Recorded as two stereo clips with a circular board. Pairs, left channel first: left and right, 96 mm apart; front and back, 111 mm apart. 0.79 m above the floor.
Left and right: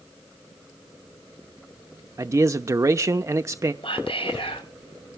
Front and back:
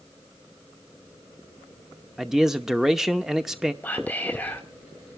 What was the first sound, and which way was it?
A man speaking, 95° right.